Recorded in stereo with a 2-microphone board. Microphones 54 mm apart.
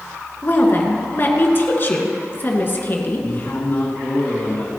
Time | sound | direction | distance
0.4 | a woman speaking | 40° left (ahead or behind) | 2 m
3.2 | a man speaking | 45° left (ahead or behind) | 2 m